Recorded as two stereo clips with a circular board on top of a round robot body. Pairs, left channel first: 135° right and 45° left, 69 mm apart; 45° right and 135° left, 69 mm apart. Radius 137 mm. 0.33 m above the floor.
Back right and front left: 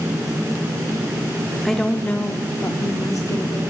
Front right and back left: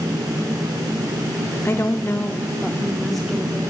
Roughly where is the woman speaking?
Ahead right.